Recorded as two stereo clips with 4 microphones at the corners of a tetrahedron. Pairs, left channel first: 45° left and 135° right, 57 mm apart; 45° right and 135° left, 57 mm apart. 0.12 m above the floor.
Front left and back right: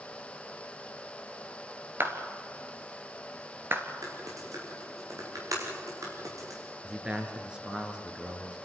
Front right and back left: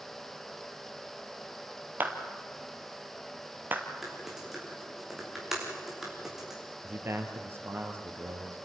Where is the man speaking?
155° left, 2.5 m.